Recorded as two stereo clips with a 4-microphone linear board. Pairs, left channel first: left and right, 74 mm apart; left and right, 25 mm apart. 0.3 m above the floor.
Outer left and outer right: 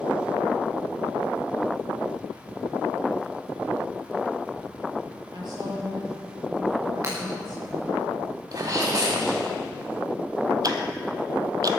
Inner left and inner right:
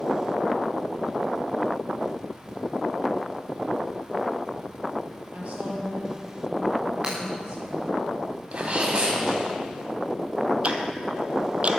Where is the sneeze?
55° right (ahead or behind), 1.5 m.